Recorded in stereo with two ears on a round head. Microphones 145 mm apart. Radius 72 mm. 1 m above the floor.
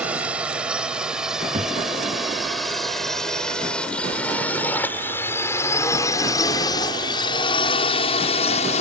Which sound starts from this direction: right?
A thud, at 1.5 s.